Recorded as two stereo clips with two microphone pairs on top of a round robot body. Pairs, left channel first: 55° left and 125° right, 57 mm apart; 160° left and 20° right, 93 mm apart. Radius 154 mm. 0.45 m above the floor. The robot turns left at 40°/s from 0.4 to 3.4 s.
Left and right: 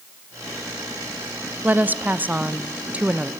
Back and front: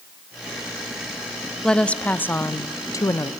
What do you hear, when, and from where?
1.6 s a woman speaking: 105° right, 1.1 m; by 3.3 s 175° right, 1.1 m